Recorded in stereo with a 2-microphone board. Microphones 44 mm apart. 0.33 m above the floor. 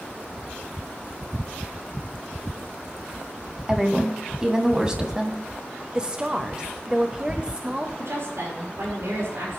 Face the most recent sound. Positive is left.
turn(degrees=-70)  # may be behind; listen again after turning